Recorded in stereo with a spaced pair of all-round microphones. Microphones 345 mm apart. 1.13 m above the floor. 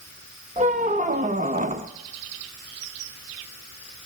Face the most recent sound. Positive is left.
turn(degrees=-20)  # may be behind; listen again after turning